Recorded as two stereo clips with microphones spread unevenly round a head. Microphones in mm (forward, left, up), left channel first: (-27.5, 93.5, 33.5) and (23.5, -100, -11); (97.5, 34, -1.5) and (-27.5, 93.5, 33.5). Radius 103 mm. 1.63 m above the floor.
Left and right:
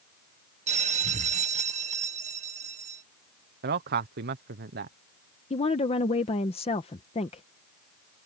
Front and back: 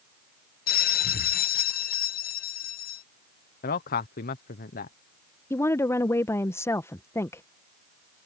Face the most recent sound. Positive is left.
turn(degrees=55)